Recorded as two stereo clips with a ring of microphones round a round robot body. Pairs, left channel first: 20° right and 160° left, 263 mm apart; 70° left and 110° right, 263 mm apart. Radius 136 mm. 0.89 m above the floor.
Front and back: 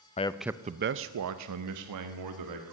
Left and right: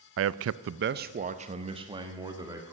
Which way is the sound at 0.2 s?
85° right.